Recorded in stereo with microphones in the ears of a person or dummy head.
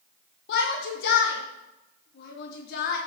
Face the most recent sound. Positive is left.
turn(degrees=60)  # may be behind; listen again after turning